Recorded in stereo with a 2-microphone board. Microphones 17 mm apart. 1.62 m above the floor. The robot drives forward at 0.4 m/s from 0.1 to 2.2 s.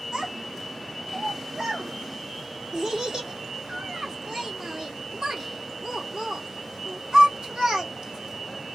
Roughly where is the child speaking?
Right.